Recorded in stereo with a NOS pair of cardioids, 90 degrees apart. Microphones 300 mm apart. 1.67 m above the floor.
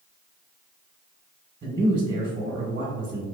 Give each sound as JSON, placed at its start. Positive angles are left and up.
{"t": 1.6, "sound": "a man speaking", "azimuth_deg": -30, "distance_m": 1.2}